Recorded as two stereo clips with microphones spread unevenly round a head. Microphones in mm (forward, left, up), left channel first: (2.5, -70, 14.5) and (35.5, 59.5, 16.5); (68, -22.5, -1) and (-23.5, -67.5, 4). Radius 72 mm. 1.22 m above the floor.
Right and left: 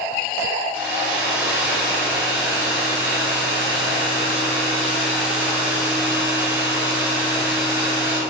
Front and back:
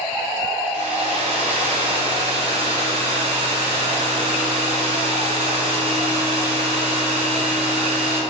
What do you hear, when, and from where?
0.7 s a hair dryer: 155° left, 0.6 m